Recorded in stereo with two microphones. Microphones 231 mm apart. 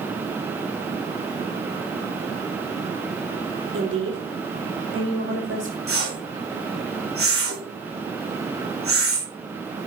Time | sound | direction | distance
3.7 | a woman speaking | 70° right (ahead or behind) | 4.5 m
5.9 | a whoosh | 75° right (ahead or behind) | 4 m